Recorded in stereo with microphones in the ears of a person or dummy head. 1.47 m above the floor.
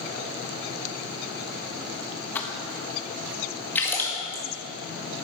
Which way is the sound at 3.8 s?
10° left (ahead or behind).